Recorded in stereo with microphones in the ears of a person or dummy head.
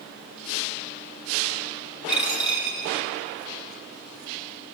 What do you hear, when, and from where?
2.1 s a dropped coin: 10° right (ahead or behind), 2 m